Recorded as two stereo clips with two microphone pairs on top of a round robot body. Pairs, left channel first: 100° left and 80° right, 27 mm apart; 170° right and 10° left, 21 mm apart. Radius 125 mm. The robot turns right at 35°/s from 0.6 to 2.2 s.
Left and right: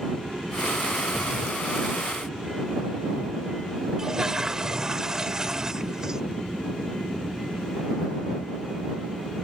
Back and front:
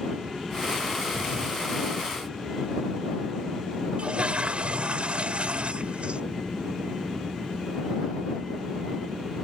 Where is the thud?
35° left; by 1.6 s 50° left.